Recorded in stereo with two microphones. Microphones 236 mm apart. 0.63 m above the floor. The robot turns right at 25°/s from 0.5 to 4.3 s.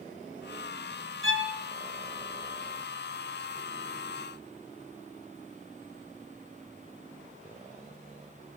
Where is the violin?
65° right (ahead or behind), 2 m; by 1.6 s 55° right (ahead or behind), 2 m.